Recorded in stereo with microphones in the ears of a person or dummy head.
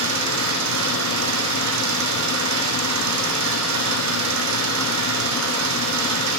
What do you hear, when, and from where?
0.0 s an engine running: 80° right, 10 m